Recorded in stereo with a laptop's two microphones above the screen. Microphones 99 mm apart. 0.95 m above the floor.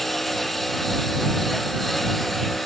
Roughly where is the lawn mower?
Centre.